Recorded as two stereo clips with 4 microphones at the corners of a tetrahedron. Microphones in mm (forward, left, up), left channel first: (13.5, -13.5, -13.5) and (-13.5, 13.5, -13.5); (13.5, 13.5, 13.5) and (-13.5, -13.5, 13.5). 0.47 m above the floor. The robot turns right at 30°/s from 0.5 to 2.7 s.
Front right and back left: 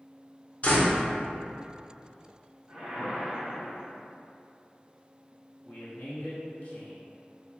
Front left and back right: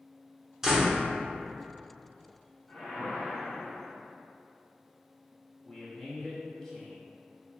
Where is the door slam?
65° right, 0.7 m; by 1.0 s 55° right, 0.7 m.